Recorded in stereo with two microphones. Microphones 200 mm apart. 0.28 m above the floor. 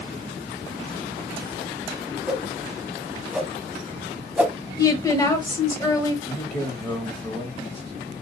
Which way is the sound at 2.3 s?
5° right (ahead or behind).